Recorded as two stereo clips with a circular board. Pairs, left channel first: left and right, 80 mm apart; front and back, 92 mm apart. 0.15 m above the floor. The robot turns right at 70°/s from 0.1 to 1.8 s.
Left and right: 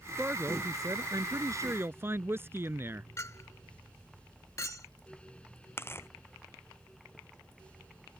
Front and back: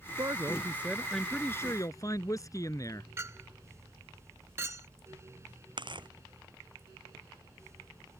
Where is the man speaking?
155° right; by 3.1 s 40° right.